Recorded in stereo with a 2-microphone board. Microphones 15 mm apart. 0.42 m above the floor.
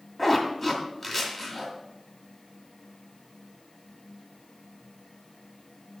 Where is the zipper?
15° left (ahead or behind), 2 m.